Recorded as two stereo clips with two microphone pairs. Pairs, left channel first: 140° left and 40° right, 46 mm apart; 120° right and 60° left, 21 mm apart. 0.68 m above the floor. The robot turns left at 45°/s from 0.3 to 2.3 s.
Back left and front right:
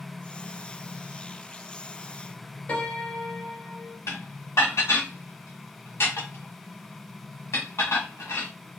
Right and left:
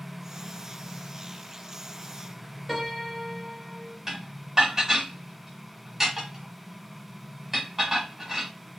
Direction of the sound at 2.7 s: 135° left.